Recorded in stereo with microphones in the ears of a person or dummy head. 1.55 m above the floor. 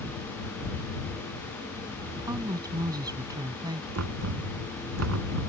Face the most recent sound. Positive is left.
turn(degrees=-90)